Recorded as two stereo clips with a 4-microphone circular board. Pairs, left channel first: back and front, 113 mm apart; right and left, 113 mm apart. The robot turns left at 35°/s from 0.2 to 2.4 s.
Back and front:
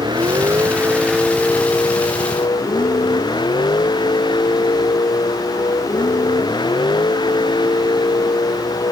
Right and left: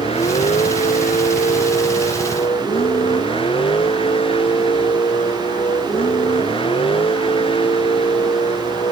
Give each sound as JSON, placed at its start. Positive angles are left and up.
{"t": 0.0, "sound": "a vehicle", "azimuth_deg": -55}